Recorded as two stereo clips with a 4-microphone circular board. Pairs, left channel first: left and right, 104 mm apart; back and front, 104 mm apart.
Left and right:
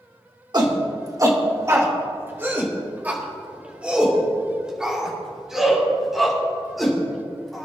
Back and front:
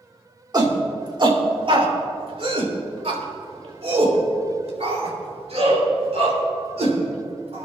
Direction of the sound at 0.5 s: 45° right.